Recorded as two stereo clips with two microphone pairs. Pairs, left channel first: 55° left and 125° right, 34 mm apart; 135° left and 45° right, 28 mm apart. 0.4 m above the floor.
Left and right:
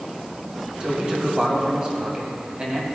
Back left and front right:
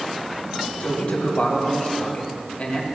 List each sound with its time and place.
0.8 s a man speaking: straight behind, 2 m